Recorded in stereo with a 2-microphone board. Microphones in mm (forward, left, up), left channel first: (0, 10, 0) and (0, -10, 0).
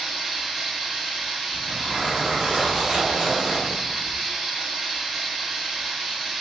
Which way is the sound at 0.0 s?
5° right (ahead or behind).